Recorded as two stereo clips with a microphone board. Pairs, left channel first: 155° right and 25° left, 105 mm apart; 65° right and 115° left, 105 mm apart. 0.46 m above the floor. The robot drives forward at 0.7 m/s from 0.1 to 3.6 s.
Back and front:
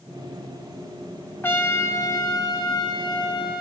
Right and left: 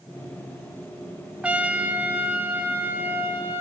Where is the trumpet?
175° left, 1.2 m; by 3.6 s straight behind, 2.5 m.